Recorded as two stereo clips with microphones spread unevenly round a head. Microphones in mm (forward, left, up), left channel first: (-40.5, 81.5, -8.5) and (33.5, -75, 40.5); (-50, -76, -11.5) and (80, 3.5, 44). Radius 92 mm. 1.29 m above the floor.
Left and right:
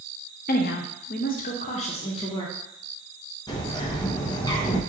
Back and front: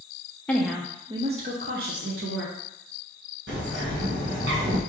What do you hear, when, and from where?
0.5 s a woman speaking: 135° left, 0.7 m; by 2.5 s 55° left, 1.2 m
3.5 s a bird: 50° left, 1.0 m